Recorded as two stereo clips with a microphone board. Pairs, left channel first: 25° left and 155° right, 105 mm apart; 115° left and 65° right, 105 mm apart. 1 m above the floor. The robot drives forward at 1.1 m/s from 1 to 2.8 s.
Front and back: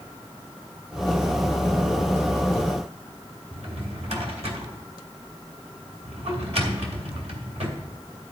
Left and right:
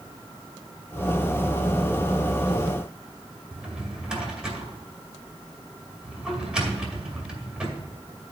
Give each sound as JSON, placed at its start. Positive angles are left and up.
{"t": 3.5, "sound": "a drawer", "azimuth_deg": -150, "distance_m": 2.0}